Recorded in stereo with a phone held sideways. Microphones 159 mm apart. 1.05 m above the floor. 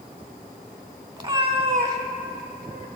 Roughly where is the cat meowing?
Right.